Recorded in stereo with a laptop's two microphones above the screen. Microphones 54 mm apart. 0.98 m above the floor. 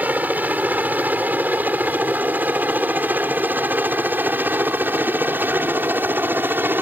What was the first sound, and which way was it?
A helicopter, 30° right (ahead or behind).